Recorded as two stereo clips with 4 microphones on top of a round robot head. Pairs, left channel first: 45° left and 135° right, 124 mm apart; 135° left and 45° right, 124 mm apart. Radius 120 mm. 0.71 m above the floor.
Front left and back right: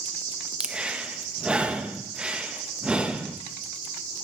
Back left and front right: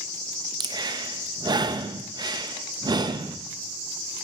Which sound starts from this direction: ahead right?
Breathing, at 0.6 s.